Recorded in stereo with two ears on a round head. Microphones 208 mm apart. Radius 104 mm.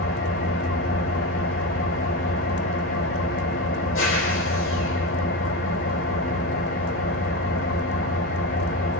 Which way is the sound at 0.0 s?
60° left (ahead or behind).